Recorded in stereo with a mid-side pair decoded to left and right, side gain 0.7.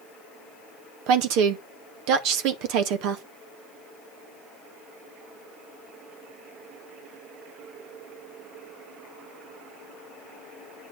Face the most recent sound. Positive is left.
turn(degrees=-65)